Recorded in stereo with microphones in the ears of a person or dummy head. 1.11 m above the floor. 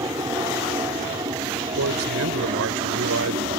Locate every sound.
0.0 s an aircraft: 15° right (ahead or behind); by 3.6 s 25° right (ahead or behind)
1.8 s a man speaking: 85° right